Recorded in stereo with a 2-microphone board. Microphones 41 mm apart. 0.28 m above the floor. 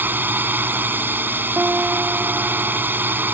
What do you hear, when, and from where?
0.0 s a drone: 50° right (ahead or behind)
1.6 s a guitar: 50° right (ahead or behind)